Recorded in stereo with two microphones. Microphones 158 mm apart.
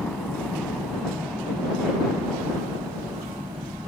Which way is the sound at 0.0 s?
5° left (ahead or behind).